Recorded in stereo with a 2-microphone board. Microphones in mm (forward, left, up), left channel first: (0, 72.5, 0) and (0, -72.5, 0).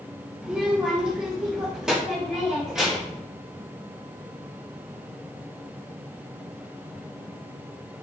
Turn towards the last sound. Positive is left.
turn(degrees=-5)  # may be behind; listen again after turning